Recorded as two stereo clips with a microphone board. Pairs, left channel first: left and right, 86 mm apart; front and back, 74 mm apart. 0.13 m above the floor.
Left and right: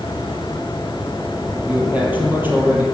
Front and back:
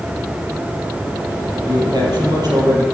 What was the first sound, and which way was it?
A man speaking, 165° right.